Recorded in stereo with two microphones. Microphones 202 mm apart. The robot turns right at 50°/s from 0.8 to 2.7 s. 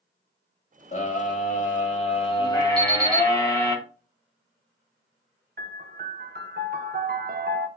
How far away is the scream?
About 1.5 m.